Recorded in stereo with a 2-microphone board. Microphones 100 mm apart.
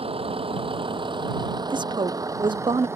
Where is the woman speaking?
50° right (ahead or behind).